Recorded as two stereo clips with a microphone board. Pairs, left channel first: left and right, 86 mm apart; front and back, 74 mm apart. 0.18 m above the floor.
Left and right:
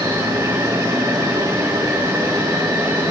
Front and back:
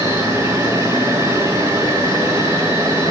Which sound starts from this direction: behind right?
An insect, at 0.0 s.